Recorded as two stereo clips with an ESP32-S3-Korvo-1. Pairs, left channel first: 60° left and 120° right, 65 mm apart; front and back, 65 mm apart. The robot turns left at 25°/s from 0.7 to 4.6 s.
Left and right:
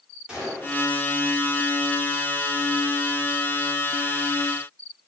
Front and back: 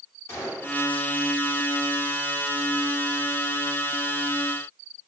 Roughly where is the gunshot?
Ahead right.